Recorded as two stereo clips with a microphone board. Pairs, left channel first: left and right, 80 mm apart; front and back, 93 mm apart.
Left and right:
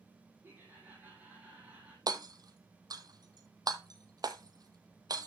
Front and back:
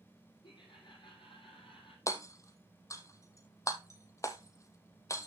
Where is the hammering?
55° right, 1.2 m.